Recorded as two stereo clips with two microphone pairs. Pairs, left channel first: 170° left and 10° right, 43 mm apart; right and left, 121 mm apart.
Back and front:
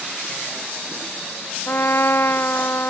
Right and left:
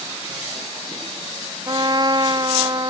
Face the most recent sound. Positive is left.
turn(degrees=140)